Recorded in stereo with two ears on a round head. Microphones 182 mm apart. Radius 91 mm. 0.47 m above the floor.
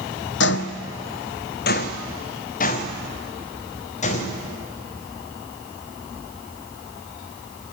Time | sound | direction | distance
0.4 | footsteps | 60° left (ahead or behind) | 0.9 m